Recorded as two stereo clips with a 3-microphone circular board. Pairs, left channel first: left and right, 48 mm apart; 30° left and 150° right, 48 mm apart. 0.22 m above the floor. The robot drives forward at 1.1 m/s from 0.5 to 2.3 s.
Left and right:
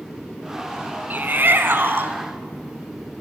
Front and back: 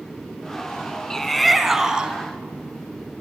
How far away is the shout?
About 2 m.